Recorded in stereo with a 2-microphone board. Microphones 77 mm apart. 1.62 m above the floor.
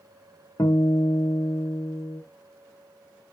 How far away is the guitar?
About 0.7 m.